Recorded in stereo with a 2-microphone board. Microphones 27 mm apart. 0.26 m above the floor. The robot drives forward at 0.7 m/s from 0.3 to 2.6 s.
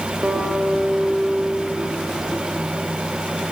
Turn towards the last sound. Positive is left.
turn(degrees=-50)  # may be behind; listen again after turning